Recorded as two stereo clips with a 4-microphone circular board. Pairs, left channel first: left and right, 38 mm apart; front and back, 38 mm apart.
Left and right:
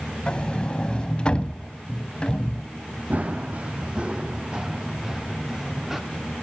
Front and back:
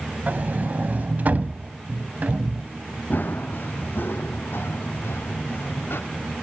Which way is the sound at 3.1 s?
40° right.